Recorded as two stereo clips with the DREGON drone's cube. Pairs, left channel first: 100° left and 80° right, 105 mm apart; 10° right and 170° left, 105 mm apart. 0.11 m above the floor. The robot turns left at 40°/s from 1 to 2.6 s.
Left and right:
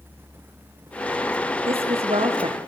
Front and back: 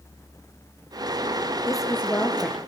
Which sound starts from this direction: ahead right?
A woman speaking, at 1.7 s.